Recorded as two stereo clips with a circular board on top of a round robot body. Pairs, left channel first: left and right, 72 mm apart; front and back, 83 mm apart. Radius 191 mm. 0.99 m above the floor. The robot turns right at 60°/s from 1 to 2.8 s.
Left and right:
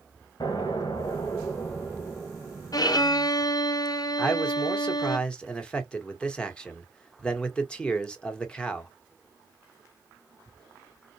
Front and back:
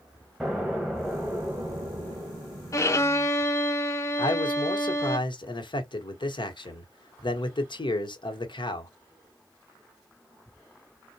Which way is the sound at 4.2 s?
15° left.